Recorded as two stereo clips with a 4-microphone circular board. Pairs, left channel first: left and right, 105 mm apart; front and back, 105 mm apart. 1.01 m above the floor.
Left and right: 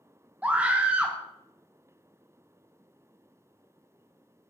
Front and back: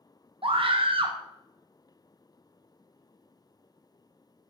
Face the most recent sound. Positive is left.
turn(degrees=-165)